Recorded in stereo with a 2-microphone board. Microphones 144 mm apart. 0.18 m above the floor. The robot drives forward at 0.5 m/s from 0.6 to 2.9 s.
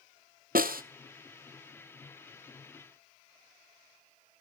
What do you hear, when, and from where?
0.6 s a snare drum: 80° right, 0.9 m; by 0.8 s 85° right, 0.9 m